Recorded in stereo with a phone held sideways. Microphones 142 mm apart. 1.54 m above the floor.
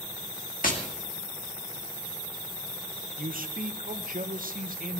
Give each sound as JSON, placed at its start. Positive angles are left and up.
{"t": 0.6, "sound": "tapping", "side_deg": 70, "distance_m": 2.0}
{"t": 3.2, "sound": "a man speaking", "side_deg": -75, "distance_m": 1.1}